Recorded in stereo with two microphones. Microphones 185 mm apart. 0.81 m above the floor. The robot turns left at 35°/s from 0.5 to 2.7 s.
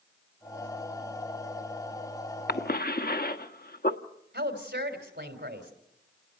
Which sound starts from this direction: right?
A woman speaking, at 4.3 s.